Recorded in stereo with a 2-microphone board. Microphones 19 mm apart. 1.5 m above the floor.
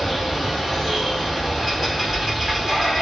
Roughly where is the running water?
Centre.